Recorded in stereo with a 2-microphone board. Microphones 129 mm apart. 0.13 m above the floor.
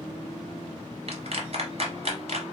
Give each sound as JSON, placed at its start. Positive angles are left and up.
{"t": 1.1, "sound": "a clap", "side_deg": -50, "distance_m": 1.5}